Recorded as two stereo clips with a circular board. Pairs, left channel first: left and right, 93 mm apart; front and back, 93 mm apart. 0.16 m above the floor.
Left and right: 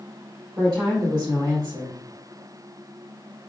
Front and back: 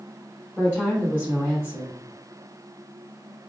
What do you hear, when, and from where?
0.6 s a woman speaking: 110° right, 1.5 m